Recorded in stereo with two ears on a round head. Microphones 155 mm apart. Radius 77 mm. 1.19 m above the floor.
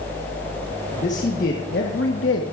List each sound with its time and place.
0.9 s a man speaking: 40° left (ahead or behind), 1.7 m; by 2.4 s 85° left, 1.4 m